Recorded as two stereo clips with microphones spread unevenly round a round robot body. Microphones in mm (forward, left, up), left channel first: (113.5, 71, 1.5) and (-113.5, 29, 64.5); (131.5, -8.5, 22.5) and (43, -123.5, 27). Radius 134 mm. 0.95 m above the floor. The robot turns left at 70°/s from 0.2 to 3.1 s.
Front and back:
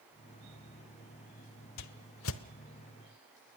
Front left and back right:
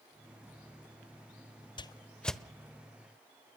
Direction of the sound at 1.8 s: Straight ahead.